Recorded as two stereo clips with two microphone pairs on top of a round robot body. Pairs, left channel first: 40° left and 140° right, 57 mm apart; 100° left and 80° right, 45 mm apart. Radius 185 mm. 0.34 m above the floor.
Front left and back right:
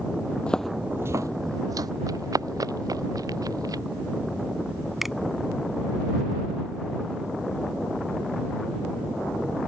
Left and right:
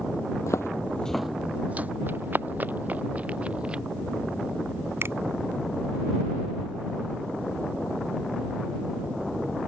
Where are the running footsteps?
130° right; by 3.8 s 150° right.